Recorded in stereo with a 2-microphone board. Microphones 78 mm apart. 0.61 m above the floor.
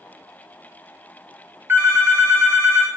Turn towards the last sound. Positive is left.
turn(degrees=-30)  # may be behind; listen again after turning